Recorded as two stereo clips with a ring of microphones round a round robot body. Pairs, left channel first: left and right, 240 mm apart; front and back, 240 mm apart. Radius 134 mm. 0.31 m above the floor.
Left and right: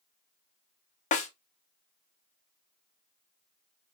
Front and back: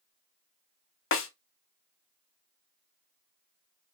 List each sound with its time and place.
1.1 s a snare drum: 30° left, 0.7 m